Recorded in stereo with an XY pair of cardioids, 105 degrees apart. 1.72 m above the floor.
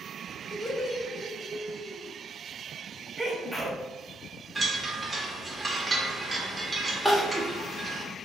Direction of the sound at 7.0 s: 5° right.